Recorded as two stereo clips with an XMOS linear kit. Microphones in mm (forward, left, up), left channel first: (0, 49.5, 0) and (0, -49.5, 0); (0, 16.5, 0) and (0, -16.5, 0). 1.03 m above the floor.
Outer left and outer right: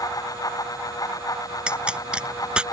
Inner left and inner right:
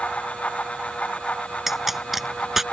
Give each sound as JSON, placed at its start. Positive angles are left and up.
{"t": 1.7, "sound": "a pop", "side_deg": -10}